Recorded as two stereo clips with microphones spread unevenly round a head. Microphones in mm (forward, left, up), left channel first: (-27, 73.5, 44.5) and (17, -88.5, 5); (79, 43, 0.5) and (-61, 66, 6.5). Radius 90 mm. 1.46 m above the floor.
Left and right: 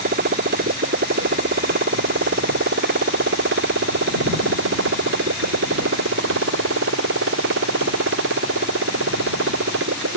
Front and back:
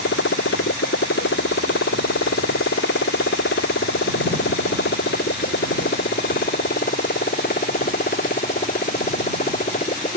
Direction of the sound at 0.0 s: 35° right.